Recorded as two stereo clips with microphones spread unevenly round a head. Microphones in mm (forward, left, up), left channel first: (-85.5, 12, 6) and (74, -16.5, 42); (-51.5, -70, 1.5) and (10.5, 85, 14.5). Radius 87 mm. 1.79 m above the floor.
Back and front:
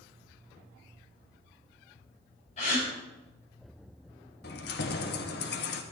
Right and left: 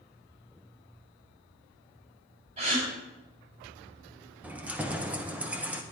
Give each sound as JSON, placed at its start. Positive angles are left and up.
{"t": 2.6, "sound": "a gasp", "azimuth_deg": 115, "distance_m": 7.0}
{"t": 4.4, "sound": "keys jangling", "azimuth_deg": 145, "distance_m": 1.1}